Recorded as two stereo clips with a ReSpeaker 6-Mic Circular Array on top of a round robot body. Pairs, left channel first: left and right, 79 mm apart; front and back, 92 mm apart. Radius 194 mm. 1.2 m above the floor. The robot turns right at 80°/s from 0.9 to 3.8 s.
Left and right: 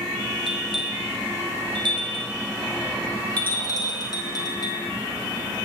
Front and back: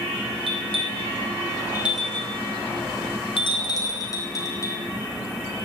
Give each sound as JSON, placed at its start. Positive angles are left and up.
{"t": 0.5, "sound": "a bell", "azimuth_deg": 180, "distance_m": 2.0}